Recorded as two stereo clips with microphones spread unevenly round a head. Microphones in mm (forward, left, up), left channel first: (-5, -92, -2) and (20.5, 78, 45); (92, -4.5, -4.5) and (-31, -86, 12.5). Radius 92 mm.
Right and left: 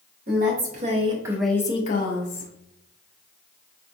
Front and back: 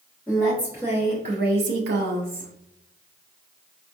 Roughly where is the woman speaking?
Behind left.